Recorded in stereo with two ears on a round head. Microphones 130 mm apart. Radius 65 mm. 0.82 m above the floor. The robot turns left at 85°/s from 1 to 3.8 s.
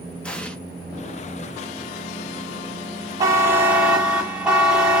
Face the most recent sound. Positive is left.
turn(degrees=-10)  # may be behind; listen again after turning